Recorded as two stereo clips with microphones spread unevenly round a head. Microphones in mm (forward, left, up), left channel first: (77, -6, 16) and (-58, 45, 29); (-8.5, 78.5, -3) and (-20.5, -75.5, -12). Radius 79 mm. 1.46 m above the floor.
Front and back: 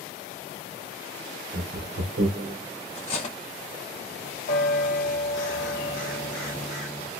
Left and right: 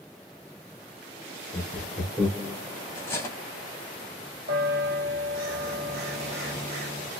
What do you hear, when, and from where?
1.5 s laughter: 165° left, 1.3 m; by 2.6 s 170° right, 0.9 m
3.0 s cutlery clinking: 20° left, 1.0 m
4.5 s a bell: 60° right, 1.2 m